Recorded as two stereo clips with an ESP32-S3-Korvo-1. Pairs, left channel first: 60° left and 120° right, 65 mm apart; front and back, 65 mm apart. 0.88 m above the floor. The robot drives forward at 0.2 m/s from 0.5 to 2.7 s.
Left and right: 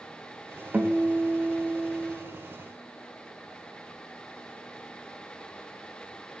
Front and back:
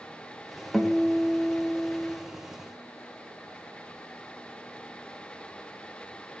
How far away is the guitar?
About 0.6 m.